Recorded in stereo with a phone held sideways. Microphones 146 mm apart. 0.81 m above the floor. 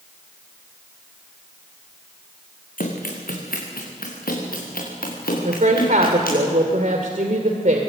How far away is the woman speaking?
About 2.5 m.